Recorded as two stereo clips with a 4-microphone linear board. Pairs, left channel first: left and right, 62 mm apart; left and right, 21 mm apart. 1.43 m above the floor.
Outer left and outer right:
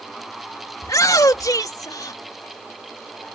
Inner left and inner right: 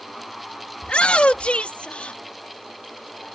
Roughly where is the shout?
Left.